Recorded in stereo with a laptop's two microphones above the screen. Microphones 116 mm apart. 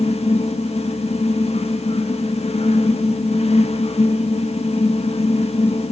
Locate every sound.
0.0 s a fan: 60° left (ahead or behind), 1.3 m